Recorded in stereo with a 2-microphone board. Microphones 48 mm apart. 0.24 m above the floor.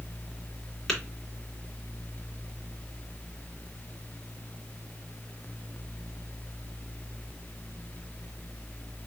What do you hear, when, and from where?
0.9 s tapping: 5° left (ahead or behind), 2.5 m